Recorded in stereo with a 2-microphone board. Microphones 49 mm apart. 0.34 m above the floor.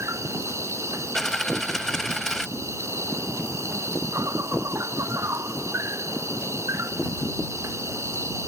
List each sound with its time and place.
0.0 s an insect: 90° right
1.1 s a dropped coin: 10° left (ahead or behind)